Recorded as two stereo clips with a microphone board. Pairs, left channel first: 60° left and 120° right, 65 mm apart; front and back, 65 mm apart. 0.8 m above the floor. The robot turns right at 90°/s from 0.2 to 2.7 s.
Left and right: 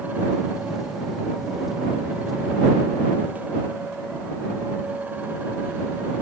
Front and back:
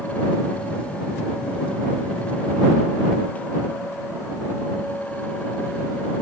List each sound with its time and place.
Only background noise.